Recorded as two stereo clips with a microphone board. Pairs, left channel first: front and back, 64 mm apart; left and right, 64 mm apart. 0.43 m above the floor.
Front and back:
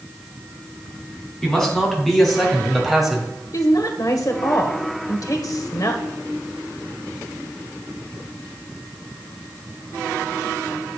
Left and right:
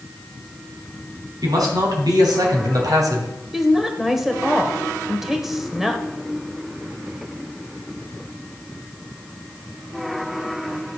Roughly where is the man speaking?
Right.